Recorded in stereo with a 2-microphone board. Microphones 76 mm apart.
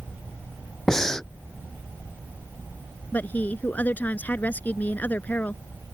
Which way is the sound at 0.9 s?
5° left (ahead or behind).